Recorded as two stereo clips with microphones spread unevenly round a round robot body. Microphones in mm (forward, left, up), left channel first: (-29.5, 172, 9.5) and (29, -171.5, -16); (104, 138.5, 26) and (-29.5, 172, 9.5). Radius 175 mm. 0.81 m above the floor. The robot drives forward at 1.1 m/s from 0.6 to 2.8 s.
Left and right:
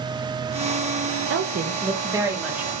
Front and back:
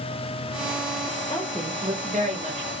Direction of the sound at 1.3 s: 70° right.